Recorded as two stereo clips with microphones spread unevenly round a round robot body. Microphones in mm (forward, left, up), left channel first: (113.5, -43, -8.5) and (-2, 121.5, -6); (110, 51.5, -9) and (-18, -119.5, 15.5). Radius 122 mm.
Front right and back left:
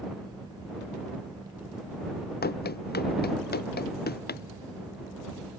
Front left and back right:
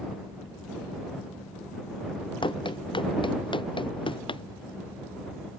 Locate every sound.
2.4 s running footsteps: 15° right